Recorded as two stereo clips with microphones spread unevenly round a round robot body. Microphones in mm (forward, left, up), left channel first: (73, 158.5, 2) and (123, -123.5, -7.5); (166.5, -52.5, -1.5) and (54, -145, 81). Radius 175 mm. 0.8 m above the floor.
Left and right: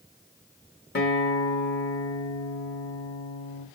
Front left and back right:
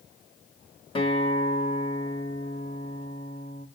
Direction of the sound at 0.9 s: 50° left.